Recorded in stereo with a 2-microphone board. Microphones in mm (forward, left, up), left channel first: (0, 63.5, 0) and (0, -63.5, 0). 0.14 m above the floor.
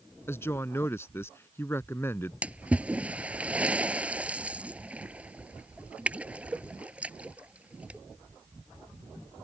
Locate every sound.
0.3 s a woman speaking: 20° left (ahead or behind)
2.4 s a splash: 10° right (ahead or behind)